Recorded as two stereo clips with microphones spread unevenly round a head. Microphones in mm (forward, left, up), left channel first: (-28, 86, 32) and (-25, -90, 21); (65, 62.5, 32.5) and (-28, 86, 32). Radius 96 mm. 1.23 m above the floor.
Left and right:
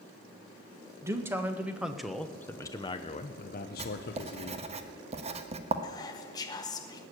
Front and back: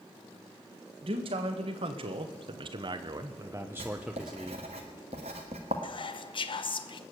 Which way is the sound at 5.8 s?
20° left.